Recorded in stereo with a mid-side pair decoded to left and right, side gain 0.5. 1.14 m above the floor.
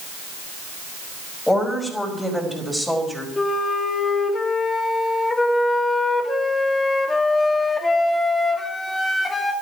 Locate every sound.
1.5 s a woman speaking: 10° left, 5.5 m; by 3.3 s straight ahead, 4.5 m
3.4 s a flute: 25° left, 2.0 m